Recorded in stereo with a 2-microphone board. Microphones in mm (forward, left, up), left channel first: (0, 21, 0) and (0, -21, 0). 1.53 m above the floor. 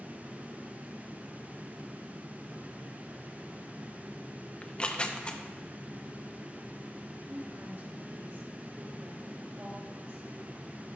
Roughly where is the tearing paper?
Left.